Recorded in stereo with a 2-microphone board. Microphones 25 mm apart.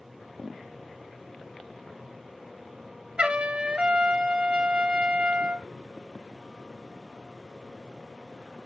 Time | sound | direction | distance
3.2 | a trumpet | 50° right (ahead or behind) | 1.2 m